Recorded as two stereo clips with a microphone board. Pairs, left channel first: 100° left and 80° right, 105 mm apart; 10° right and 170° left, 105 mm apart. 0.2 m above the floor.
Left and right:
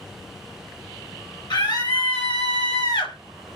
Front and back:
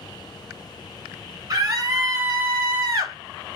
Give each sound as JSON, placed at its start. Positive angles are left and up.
{"t": 1.5, "sound": "a scream", "azimuth_deg": 125, "distance_m": 1.9}